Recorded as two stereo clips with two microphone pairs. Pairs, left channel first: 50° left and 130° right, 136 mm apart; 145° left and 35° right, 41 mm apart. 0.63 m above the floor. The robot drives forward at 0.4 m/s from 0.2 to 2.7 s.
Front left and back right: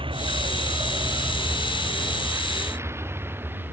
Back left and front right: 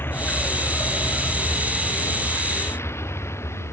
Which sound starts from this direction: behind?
A vehicle, at 0.0 s.